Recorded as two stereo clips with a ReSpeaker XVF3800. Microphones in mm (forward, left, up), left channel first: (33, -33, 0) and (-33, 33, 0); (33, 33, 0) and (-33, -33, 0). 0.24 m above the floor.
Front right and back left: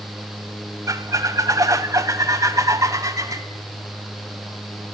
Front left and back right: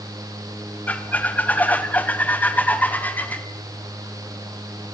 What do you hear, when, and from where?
0.9 s a squeak: 105° left, 1.2 m